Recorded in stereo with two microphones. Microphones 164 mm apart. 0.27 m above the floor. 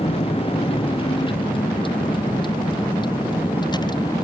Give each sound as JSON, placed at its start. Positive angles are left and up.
{"t": 0.0, "sound": "a vehicle", "side_deg": 35}